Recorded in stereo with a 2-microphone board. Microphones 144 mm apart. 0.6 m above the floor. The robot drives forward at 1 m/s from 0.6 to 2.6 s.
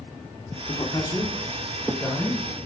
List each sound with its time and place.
0.7 s a man speaking: 35° left (ahead or behind), 1.0 m; by 2.7 s 15° left (ahead or behind), 2.5 m